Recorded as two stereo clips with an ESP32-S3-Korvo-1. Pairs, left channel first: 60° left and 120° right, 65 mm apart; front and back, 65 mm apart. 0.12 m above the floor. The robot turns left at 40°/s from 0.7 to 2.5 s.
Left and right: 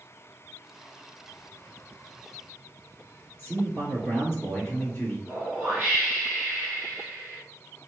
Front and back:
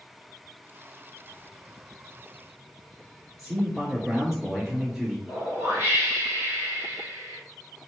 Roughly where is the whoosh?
Behind.